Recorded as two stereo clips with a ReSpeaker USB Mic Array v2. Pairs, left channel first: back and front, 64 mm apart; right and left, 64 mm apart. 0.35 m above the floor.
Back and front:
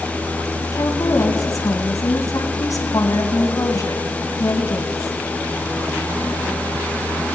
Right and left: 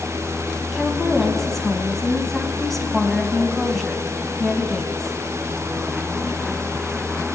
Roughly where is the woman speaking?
Behind.